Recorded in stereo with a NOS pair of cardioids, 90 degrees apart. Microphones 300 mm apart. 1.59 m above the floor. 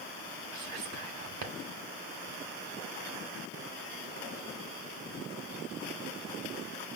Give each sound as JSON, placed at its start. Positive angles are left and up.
{"t": 0.5, "sound": "whispering", "azimuth_deg": -70, "distance_m": 1.4}